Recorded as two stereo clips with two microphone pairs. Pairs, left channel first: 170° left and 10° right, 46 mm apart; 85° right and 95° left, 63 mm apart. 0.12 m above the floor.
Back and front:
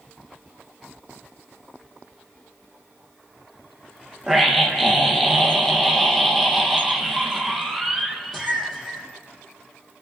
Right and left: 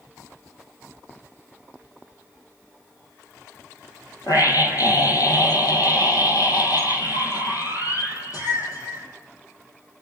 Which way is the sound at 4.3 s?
105° right.